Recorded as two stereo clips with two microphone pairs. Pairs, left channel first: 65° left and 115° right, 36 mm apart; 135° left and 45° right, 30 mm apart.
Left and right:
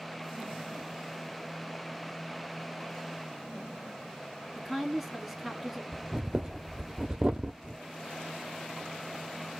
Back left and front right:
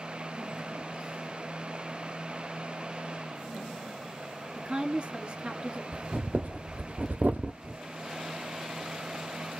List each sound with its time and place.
4.5 s a woman speaking: 30° right, 1.4 m
5.9 s breathing: 55° right, 1.0 m